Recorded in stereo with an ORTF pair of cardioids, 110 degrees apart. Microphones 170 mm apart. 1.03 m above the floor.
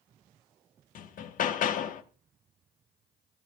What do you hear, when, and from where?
0.9 s hammering: 55° left, 1.1 m